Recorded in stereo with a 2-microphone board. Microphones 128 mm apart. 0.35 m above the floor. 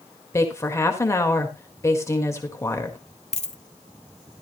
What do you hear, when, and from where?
0.3 s a woman speaking: 20° left (ahead or behind), 1.6 m
3.3 s a dropped coin: 55° left (ahead or behind), 0.7 m